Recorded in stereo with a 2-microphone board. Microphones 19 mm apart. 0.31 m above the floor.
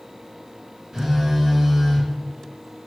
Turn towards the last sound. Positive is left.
turn(degrees=-35)  # may be behind; listen again after turning